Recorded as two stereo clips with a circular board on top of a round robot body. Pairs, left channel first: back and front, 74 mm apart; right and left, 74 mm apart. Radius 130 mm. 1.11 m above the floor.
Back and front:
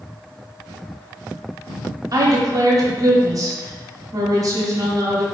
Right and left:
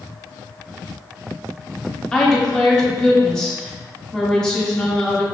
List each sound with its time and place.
2.1 s a woman speaking: 15° right, 0.8 m